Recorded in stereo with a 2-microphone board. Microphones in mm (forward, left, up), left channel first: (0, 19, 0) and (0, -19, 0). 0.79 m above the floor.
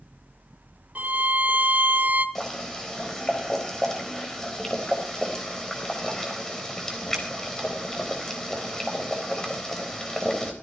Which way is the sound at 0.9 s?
45° right (ahead or behind).